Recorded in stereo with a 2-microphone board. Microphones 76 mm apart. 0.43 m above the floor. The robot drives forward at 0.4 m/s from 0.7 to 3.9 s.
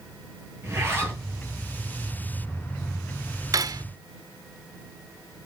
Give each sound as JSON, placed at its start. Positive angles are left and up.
{"t": 0.6, "sound": "a zipper", "side_deg": -35, "distance_m": 9.0}
{"t": 3.5, "sound": "cutlery clinking", "side_deg": -50, "distance_m": 0.5}